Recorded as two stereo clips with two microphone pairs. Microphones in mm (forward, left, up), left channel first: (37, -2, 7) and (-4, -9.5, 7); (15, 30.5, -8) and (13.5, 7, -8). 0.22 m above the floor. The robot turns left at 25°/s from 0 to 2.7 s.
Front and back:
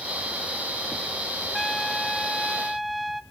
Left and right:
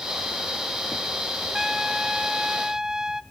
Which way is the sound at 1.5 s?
55° right.